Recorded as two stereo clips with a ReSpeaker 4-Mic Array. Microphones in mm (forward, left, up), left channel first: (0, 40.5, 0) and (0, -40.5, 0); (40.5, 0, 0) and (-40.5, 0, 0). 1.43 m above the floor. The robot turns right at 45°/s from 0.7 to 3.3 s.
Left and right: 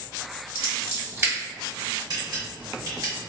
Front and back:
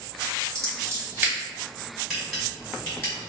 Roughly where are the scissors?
Behind right.